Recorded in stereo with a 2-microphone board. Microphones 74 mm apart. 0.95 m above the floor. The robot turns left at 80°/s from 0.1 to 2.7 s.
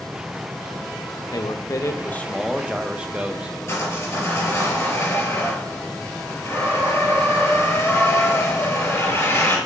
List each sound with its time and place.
1.3 s a man speaking: 90° left, 0.7 m; by 3.6 s 20° right, 0.7 m
3.7 s sawing: 40° left (ahead or behind), 4.5 m